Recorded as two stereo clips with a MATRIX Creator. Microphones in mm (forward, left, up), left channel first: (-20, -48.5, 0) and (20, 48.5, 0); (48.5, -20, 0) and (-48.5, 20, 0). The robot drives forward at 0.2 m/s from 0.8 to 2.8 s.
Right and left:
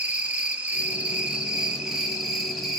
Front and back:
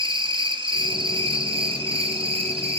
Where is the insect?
140° left, 0.7 m; by 2.8 s 155° left, 1.0 m.